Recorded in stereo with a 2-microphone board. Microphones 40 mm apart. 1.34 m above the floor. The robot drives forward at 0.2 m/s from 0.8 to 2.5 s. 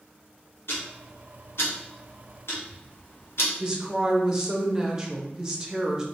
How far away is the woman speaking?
About 0.7 m.